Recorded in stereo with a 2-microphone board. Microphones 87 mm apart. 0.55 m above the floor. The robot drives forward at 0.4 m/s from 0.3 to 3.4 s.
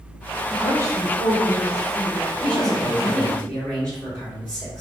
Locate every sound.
0.5 s a woman speaking: 30° left (ahead or behind), 1.5 m; by 3.4 s 25° left (ahead or behind), 1.6 m
2.4 s a man speaking: 15° left (ahead or behind), 1.8 m; by 4.8 s 10° left (ahead or behind), 2 m